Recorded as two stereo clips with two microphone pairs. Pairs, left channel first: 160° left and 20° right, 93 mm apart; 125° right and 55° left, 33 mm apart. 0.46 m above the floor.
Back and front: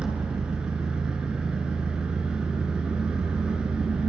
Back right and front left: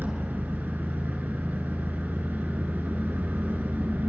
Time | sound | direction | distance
0.0 | an engine running | 60° left | 4 m